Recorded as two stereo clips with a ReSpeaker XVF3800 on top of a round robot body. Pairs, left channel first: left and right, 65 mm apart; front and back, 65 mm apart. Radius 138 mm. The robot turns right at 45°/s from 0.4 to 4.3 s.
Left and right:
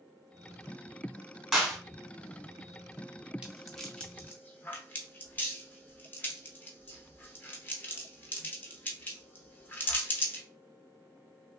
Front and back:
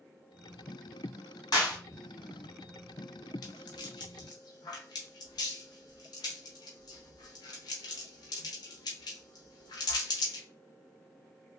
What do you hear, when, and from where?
1.5 s a clap: 5° right, 1.9 m; by 1.8 s 10° left, 1.9 m
3.4 s a rattle: 15° right, 0.5 m; by 10.4 s 25° left, 0.5 m